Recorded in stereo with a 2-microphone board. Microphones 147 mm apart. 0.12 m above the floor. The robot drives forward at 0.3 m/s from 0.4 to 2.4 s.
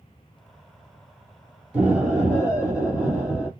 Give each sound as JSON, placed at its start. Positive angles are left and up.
{"t": 1.7, "sound": "an explosion", "side_deg": -10, "distance_m": 1.3}